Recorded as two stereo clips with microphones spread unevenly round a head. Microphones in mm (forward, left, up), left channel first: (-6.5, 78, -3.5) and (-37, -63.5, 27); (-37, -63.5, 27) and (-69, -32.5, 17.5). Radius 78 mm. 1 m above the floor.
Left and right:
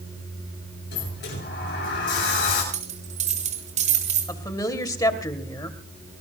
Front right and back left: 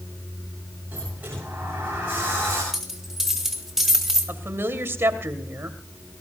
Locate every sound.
0.9 s a sliding door: 70° left, 9 m
2.7 s a dropped coin: 140° right, 3.5 m
4.3 s a woman speaking: 140° left, 2.5 m